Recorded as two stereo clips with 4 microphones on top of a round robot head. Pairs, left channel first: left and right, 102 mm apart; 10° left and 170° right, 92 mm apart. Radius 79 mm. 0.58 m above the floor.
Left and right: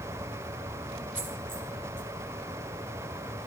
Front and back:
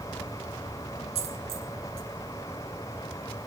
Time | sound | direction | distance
1.1 | a dropped coin | 165° right | 2.5 m